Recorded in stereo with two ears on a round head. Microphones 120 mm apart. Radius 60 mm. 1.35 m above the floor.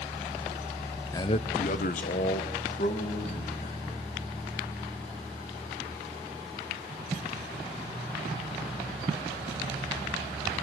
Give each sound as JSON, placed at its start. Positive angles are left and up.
{"t": 1.1, "sound": "a man speaking", "side_deg": 20, "distance_m": 0.6}